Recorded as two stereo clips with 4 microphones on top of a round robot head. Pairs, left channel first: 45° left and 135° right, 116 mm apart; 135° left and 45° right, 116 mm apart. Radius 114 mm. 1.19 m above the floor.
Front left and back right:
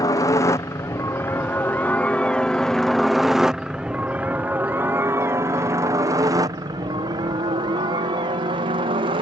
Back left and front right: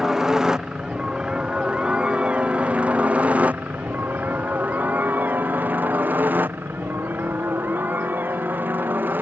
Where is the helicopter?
40° left; by 9.2 s 115° right.